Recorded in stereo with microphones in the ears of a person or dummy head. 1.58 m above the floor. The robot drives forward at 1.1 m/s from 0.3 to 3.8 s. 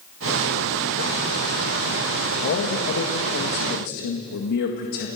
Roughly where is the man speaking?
Left.